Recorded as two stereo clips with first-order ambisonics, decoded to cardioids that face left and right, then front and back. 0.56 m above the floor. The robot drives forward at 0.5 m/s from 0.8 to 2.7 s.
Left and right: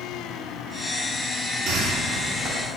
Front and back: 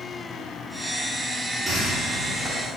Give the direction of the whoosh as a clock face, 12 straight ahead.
4 o'clock.